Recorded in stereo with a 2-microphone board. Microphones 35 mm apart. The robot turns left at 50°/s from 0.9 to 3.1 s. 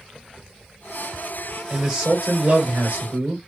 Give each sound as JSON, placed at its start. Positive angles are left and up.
{"t": 1.7, "sound": "a man speaking", "azimuth_deg": -10, "distance_m": 1.5}